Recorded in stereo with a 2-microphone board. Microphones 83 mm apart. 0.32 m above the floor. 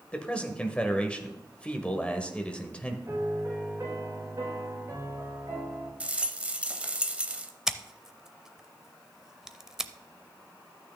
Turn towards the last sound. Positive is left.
turn(degrees=-5)  # may be behind; listen again after turning